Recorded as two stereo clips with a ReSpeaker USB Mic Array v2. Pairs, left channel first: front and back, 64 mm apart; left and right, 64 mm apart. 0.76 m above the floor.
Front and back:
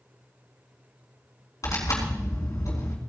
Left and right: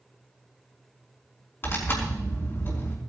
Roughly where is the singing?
No singing in this recording.